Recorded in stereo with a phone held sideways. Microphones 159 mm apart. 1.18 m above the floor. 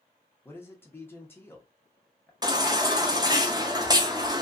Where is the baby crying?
25° right (ahead or behind), 0.5 m.